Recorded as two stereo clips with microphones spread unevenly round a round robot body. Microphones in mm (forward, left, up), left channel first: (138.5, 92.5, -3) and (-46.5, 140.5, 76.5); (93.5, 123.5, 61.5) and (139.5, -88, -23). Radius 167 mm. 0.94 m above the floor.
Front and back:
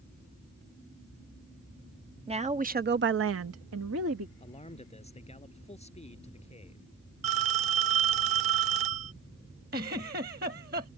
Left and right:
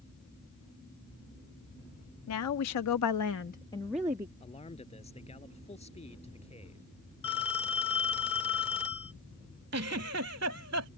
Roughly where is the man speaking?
Ahead left.